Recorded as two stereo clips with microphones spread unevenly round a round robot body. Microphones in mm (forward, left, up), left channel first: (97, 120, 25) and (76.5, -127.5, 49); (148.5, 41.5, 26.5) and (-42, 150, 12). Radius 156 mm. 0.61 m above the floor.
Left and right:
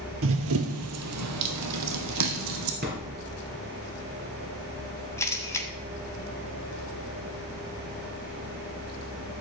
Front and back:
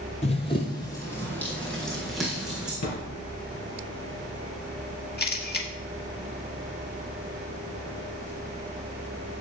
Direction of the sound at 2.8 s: 45° right.